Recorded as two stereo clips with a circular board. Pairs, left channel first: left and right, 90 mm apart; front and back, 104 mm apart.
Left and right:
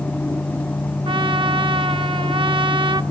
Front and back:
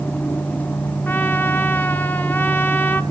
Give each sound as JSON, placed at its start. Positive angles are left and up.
{"t": 1.1, "sound": "a trumpet", "azimuth_deg": -70, "distance_m": 1.0}